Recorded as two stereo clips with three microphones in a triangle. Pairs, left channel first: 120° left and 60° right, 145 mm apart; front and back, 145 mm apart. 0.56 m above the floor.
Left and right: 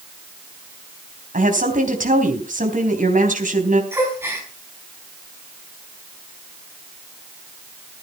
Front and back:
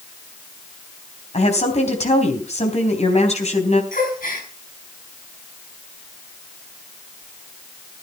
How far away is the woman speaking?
About 3.5 m.